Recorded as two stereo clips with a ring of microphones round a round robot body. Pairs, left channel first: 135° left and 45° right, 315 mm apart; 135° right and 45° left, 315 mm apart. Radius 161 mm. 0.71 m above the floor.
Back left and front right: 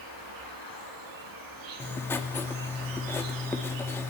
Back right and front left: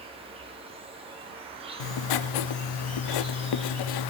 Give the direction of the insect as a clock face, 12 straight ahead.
1 o'clock.